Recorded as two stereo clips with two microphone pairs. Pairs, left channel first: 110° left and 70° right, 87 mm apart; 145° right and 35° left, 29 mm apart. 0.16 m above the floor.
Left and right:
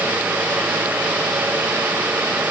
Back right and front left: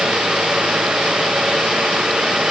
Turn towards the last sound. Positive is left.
No sound to turn to.